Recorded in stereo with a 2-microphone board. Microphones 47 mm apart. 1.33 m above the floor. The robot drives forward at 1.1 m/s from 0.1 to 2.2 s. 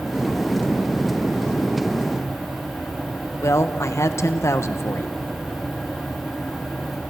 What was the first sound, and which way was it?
A woman speaking, 85° left.